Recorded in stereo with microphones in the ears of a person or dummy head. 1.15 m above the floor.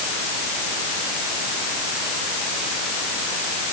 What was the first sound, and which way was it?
Only background noise.